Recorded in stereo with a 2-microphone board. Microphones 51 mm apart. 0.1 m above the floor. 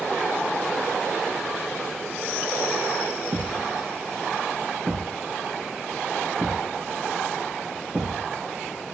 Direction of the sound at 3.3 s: 50° right (ahead or behind).